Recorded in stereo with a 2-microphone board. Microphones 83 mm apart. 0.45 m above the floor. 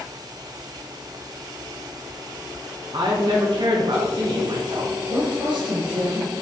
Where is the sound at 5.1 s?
70° right (ahead or behind), 1.9 m.